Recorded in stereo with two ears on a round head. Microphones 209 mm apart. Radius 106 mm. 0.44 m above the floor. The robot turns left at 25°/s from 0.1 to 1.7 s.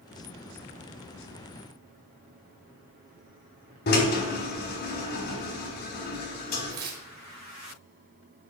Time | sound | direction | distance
3.9 | a drill | 50° left (ahead or behind) | 2.5 m
6.7 | tearing paper | 40° right (ahead or behind) | 2 m